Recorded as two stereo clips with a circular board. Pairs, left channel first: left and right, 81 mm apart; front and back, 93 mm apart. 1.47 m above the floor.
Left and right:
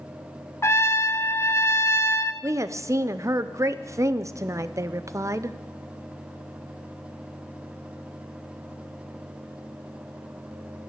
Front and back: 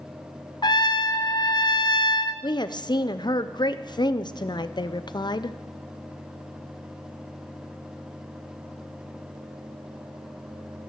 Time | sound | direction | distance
0.6 | a trumpet | 35° left | 0.7 m
2.4 | a woman speaking | 40° right | 0.6 m